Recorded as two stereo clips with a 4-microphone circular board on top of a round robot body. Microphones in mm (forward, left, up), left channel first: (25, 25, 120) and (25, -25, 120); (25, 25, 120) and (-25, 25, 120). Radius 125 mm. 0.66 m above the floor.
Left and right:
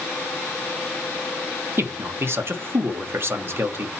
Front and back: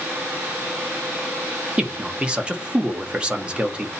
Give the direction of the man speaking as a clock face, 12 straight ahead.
4 o'clock.